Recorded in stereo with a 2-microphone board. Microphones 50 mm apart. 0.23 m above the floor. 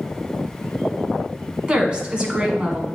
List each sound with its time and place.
1.7 s a woman speaking: 20° right (ahead or behind), 1.5 m